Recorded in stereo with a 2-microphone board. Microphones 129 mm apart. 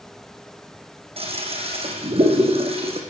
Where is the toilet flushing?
50° right (ahead or behind), 4 m.